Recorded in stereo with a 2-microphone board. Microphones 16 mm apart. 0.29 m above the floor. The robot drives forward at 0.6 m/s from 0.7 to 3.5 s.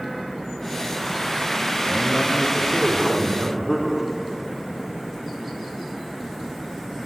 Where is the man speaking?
5° right (ahead or behind), 3.5 m.